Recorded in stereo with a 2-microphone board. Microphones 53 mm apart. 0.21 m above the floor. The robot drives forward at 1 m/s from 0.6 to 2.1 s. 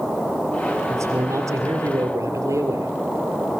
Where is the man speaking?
65° right (ahead or behind), 4.5 m; by 3.0 s 75° right (ahead or behind), 4 m.